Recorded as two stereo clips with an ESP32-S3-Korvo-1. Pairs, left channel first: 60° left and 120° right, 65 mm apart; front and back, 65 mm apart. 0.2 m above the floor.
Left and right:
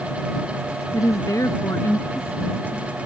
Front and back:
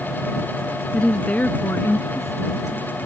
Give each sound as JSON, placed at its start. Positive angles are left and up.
{"t": 0.9, "sound": "a woman speaking", "azimuth_deg": 75}